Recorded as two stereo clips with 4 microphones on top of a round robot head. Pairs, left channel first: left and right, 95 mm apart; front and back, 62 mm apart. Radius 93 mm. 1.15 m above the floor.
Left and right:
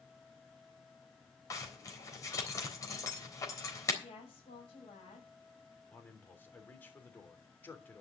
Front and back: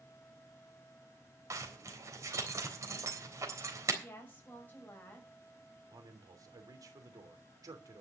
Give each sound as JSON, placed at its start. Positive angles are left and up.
{"t": 1.5, "sound": "a zipper", "azimuth_deg": 145, "distance_m": 3.5}
{"t": 4.0, "sound": "a woman speaking", "azimuth_deg": 55, "distance_m": 6.0}
{"t": 5.9, "sound": "a man speaking", "azimuth_deg": 160, "distance_m": 3.0}